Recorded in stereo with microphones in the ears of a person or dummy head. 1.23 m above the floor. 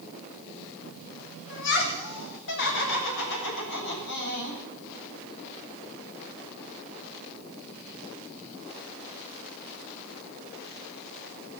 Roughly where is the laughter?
Left.